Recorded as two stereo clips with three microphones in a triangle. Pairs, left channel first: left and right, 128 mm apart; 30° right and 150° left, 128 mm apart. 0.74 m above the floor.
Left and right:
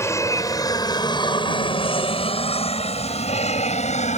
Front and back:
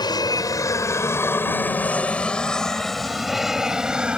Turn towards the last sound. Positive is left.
turn(degrees=70)